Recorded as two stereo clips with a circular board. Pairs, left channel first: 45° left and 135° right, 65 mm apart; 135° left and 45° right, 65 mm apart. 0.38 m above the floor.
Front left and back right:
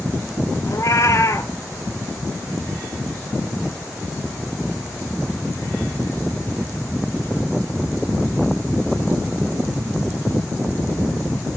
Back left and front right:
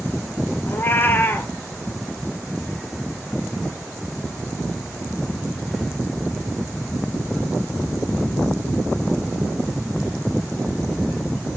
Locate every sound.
0.7 s a cat meowing: 80° left, 1.1 m